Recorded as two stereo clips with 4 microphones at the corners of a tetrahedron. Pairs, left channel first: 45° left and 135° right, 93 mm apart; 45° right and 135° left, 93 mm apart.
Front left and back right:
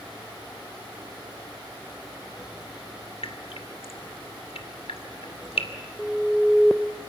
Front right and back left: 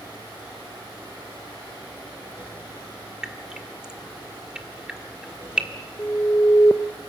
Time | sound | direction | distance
3.2 | dripping | 55° left | 1.4 m
6.0 | an alarm | 55° right | 0.7 m